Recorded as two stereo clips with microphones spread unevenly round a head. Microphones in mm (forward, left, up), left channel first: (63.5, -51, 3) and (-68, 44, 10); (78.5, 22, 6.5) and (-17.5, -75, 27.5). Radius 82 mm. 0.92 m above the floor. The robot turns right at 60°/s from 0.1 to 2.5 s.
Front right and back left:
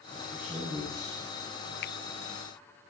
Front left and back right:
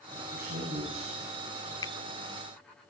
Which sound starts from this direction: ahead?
A finger snap, at 1.8 s.